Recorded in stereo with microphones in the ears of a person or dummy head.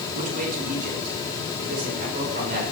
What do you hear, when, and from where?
0.1 s a man speaking: 45° right (ahead or behind), 5 m; by 2.6 s 55° right (ahead or behind), 7.5 m